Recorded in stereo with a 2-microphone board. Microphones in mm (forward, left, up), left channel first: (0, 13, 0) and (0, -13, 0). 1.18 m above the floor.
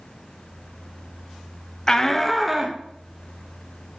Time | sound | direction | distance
1.9 | a shout | 25° left (ahead or behind) | 0.7 m